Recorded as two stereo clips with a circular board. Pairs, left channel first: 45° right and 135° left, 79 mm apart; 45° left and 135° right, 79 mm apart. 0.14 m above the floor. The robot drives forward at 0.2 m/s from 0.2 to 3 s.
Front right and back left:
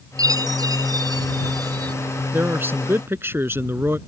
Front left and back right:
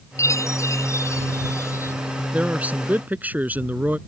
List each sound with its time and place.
0.2 s a chime: 95° left; by 1.9 s 100° left
2.3 s a man speaking: 170° left